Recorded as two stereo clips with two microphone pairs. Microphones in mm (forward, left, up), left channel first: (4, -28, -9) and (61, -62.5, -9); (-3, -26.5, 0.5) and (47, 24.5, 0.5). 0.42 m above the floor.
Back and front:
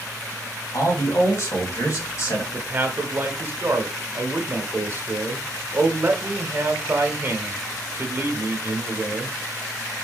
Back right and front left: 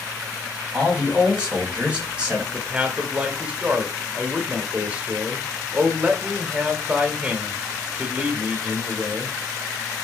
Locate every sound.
0.7 s a man speaking: 115° left, 2 m
2.5 s a man speaking: 15° right, 0.9 m